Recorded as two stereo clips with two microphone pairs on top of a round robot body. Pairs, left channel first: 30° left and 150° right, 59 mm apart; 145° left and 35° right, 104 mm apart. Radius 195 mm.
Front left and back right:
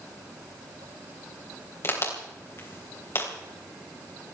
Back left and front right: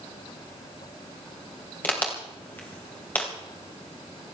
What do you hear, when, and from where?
1.8 s a crack: 75° left, 3.5 m